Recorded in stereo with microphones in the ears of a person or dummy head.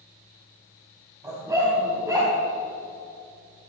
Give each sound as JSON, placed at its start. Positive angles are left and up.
{"t": 1.2, "sound": "a dog barking", "side_deg": -10, "distance_m": 5.0}